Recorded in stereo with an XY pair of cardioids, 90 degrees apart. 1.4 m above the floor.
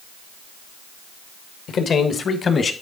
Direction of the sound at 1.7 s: 70° left.